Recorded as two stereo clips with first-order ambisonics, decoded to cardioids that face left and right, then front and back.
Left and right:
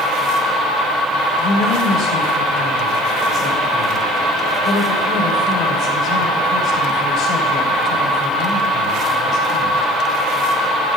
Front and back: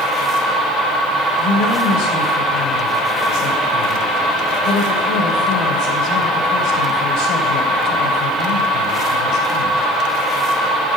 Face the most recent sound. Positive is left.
turn(degrees=35)